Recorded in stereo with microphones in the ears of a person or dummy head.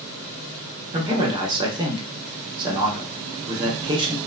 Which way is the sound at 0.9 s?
25° right (ahead or behind).